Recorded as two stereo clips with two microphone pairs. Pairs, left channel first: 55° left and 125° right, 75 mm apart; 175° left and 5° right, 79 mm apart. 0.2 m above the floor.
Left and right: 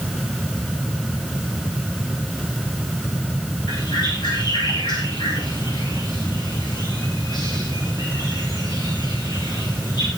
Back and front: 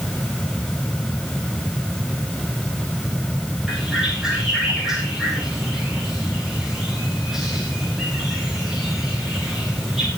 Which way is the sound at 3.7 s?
80° left.